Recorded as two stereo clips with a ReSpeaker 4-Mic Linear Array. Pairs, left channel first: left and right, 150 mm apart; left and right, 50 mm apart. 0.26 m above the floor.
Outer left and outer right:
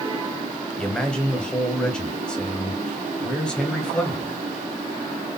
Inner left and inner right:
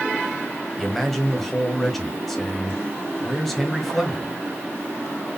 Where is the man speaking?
5° left (ahead or behind), 1.3 m.